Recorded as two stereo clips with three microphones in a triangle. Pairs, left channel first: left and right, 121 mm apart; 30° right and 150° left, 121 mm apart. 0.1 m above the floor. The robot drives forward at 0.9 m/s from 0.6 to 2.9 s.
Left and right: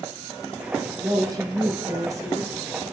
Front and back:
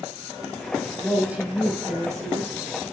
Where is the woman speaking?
125° right, 2 m; by 2.6 s 150° right, 3 m.